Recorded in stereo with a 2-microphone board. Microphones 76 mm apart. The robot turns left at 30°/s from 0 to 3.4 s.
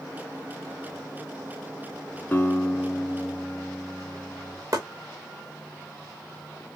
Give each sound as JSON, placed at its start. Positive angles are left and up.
{"t": 2.3, "sound": "a guitar", "azimuth_deg": 40, "distance_m": 1.1}
{"t": 4.7, "sound": "chopping", "side_deg": -50, "distance_m": 2.0}